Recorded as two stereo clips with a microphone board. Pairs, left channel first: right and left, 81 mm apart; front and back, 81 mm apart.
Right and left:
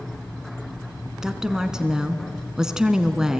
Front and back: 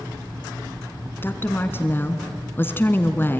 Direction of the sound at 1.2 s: 15° left.